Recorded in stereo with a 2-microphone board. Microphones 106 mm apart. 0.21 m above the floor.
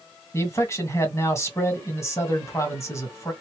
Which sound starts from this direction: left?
A man speaking, at 0.3 s.